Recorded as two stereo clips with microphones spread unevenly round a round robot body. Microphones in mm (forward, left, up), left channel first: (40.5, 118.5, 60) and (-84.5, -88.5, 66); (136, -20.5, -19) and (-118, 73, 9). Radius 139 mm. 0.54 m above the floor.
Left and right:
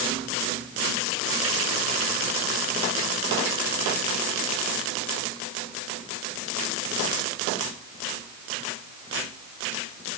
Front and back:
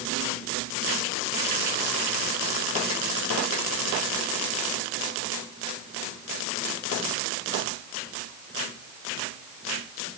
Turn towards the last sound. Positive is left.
No sound to turn to.